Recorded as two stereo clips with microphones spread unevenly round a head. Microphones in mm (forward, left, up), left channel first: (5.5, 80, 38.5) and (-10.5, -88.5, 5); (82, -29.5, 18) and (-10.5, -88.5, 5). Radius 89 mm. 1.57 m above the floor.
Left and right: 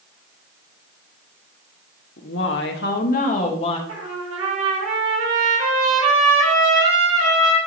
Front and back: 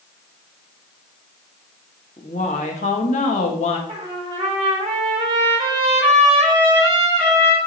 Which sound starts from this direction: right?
A trumpet, at 3.9 s.